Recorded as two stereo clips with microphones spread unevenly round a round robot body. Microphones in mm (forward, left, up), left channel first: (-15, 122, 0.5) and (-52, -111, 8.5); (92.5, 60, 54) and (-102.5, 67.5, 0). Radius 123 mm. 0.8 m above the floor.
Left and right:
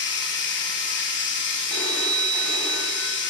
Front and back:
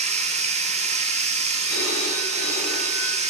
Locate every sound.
0.0 s running water: 115° left, 1.9 m
1.7 s a phone ringing: 5° right, 3 m